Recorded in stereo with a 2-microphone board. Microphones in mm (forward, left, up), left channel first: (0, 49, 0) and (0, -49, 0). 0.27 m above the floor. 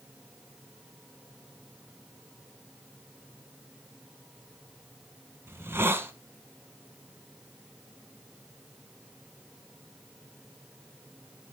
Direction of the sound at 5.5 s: 25° right (ahead or behind).